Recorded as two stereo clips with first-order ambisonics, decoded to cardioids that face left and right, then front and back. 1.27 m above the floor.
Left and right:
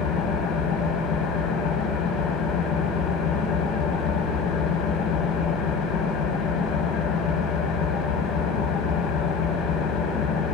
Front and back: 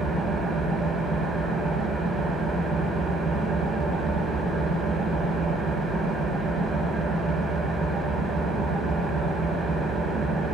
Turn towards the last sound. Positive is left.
turn(degrees=110)